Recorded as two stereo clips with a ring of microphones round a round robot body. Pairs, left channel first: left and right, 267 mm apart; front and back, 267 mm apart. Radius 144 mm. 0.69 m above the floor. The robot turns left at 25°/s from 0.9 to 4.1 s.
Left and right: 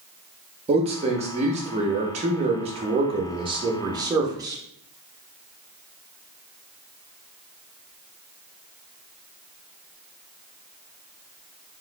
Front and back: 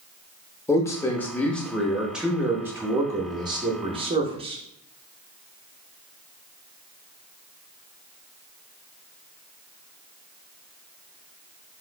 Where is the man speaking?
65° right, 0.5 m; by 4.6 s 145° right, 0.5 m.